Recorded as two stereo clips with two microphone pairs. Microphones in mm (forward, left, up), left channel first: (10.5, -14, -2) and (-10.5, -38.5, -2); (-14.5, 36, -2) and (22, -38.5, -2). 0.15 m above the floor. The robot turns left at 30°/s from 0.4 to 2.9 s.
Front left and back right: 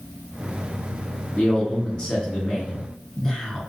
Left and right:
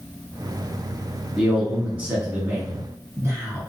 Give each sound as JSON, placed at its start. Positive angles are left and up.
{"t": 1.4, "sound": "a man speaking", "azimuth_deg": 25, "distance_m": 1.7}